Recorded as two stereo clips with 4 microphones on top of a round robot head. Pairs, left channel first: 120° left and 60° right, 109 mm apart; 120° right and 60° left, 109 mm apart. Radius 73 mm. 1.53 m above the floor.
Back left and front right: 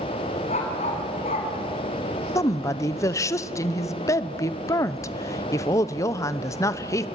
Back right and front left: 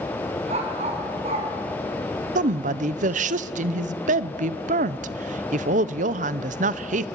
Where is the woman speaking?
60° left, 0.9 m.